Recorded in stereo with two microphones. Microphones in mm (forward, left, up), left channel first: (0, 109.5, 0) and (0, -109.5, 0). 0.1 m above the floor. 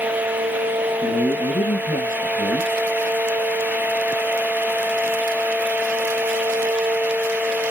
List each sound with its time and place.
1.0 s a man speaking: 45° left (ahead or behind), 1.9 m